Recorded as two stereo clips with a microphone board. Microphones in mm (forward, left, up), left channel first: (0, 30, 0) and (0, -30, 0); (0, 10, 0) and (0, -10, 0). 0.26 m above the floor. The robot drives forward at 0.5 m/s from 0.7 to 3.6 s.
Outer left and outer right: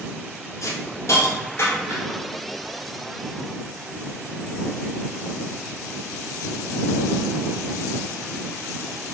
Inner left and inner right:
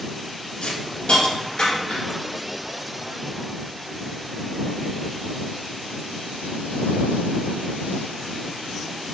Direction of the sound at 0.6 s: 60° left (ahead or behind).